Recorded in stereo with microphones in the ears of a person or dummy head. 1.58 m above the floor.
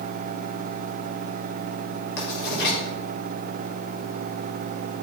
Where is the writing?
60° left (ahead or behind), 4 m.